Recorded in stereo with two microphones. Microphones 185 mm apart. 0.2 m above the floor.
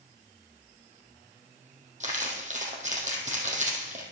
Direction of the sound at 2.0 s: 40° right (ahead or behind).